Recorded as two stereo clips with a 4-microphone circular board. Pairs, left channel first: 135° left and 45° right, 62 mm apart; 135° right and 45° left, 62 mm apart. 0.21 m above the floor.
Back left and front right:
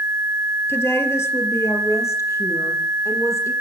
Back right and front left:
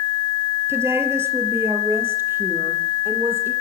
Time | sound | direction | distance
0.7 | a woman speaking | 90° left | 4.5 m